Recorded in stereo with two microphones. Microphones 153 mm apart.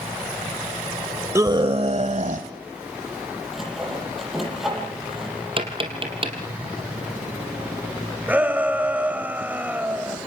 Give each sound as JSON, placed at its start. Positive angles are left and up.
{"t": 1.4, "sound": "a scream", "side_deg": -20, "distance_m": 0.9}
{"t": 3.5, "sound": "sawing", "side_deg": 0, "distance_m": 9.0}
{"t": 5.6, "sound": "tapping", "side_deg": -35, "distance_m": 3.5}
{"t": 8.3, "sound": "a shout", "side_deg": -10, "distance_m": 1.4}